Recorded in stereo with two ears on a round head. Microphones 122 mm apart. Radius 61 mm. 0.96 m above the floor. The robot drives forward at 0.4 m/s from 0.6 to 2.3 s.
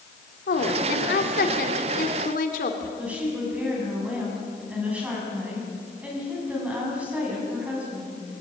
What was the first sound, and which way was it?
A woman speaking, 75° left (ahead or behind).